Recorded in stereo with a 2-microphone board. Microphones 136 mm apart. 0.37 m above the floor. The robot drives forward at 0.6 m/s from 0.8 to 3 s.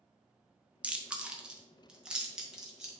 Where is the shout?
No shout in this recording.